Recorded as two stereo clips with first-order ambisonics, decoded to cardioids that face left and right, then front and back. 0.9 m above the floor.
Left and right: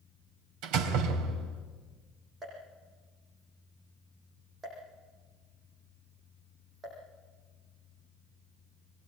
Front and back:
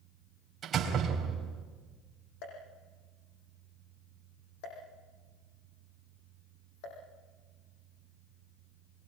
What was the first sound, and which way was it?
A door slam, 115° right.